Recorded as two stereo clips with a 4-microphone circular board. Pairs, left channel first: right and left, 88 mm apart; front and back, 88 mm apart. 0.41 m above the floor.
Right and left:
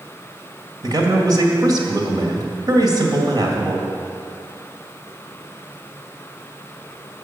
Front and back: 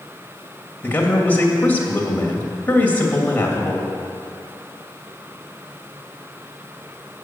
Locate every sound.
0.8 s a man speaking: 65° left, 2 m